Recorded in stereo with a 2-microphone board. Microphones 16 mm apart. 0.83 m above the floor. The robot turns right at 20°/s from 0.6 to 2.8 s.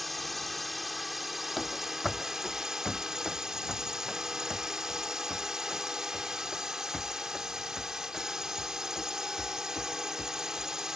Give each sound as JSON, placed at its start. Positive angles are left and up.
{"t": 0.0, "sound": "a drone", "azimuth_deg": 180}
{"t": 1.6, "sound": "running footsteps", "side_deg": 5}